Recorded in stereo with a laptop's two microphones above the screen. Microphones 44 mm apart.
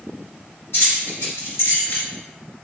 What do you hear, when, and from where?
0.7 s keys jangling: 85° left, 1.8 m; by 2.1 s 75° left (ahead or behind), 1.5 m